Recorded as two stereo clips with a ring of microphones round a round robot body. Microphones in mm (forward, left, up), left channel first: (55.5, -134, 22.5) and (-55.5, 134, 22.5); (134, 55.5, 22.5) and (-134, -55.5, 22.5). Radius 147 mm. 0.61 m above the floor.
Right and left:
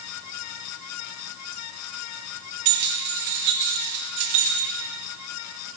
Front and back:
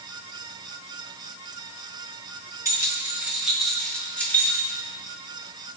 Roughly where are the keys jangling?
Behind left.